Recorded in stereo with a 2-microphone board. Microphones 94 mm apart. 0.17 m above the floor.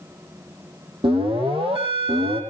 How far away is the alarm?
About 6.5 m.